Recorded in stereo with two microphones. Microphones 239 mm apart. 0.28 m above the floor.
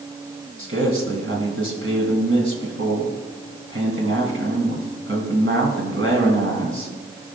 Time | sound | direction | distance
0.6 | a man speaking | 60° right (ahead or behind) | 2 m